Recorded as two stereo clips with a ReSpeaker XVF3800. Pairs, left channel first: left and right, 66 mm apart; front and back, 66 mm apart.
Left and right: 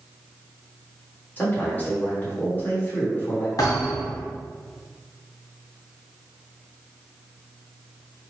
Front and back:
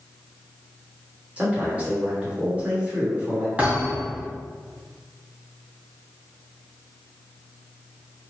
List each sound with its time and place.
1.4 s a man speaking: 130° left, 1.5 m
3.6 s a thud: 115° left, 1.6 m